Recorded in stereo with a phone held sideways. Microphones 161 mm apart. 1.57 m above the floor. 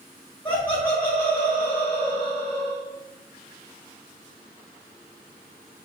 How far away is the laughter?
About 1.1 m.